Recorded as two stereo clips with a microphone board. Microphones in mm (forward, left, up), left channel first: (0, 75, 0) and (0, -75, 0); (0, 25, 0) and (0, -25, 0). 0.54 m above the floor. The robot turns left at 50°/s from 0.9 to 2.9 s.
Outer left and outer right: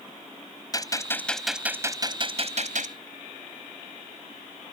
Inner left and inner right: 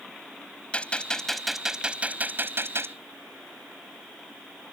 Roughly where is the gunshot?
Ahead left.